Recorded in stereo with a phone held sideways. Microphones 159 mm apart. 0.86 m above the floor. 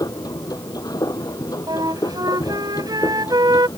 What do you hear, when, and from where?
0.0 s a machine running: 25° left (ahead or behind)
1.7 s a flute: 25° right (ahead or behind)